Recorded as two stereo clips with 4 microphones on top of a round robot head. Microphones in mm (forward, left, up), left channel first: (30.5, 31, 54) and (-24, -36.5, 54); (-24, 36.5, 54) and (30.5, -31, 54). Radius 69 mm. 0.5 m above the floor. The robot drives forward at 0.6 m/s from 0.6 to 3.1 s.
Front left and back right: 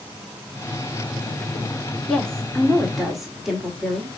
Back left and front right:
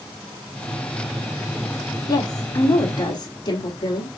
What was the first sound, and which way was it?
A woman speaking, 130° left.